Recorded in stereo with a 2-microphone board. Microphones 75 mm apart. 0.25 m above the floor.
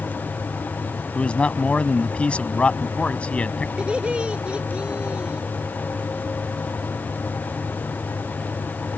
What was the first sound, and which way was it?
A man speaking, 15° left (ahead or behind).